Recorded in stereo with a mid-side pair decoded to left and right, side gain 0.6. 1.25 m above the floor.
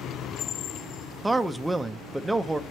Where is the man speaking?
10° right, 0.6 m.